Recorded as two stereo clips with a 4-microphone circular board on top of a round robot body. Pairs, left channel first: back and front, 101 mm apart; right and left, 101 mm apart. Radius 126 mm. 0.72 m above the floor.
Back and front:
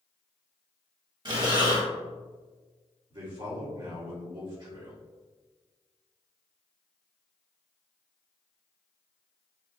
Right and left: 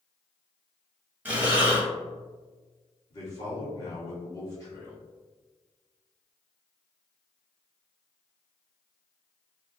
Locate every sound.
1.2 s breathing: 25° left, 1.1 m
3.1 s a man speaking: 40° right, 1.9 m